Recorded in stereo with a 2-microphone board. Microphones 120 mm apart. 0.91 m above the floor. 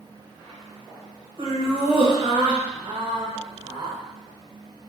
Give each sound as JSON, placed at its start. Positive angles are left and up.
{"t": 1.4, "sound": "laughter", "side_deg": -40, "distance_m": 1.2}